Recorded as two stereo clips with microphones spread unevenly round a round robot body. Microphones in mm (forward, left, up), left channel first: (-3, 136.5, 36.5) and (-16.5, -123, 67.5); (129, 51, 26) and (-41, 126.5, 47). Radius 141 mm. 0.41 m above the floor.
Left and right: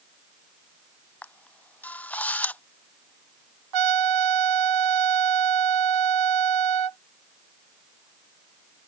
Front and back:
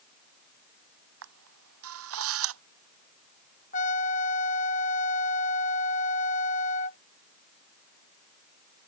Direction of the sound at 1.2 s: 170° left.